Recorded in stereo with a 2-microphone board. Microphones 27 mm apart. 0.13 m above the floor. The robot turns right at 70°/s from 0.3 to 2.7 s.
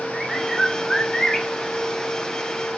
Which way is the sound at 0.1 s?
Centre (ahead or behind).